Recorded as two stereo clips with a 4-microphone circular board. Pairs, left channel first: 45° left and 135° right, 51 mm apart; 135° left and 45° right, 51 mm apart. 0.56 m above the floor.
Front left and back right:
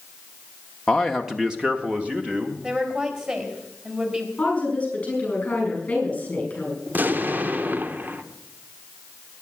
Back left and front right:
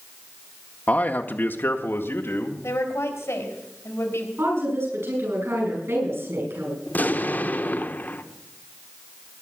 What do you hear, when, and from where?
0.9 s a man speaking: 115° left, 0.8 m; by 2.5 s 165° left, 1.8 m
2.6 s a woman speaking: 160° left, 4 m
4.4 s a woman speaking: 20° right, 9.5 m
6.9 s an explosion: straight behind, 0.9 m